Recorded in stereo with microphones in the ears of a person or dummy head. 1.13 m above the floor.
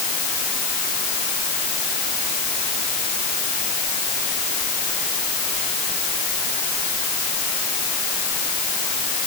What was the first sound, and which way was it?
Only background noise.